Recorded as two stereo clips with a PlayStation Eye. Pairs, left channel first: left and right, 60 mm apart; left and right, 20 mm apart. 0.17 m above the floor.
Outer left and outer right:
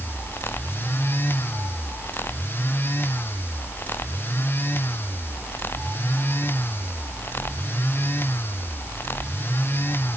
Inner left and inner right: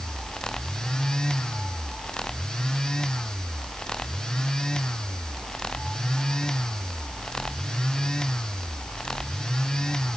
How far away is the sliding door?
No sliding door in this recording.